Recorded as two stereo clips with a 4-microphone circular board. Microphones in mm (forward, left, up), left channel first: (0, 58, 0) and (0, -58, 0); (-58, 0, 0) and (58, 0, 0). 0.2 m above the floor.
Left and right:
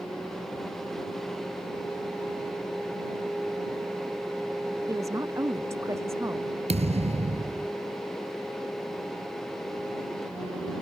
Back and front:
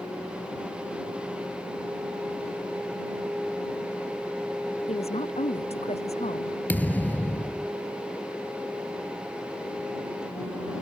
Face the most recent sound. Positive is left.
turn(degrees=-105)